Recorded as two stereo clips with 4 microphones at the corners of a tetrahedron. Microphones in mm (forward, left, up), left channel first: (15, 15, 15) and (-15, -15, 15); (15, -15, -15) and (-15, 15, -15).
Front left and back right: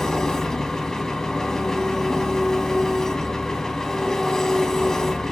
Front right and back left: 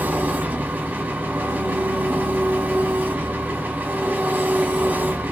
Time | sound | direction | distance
0.0 | an engine running | 115° left | 1.0 m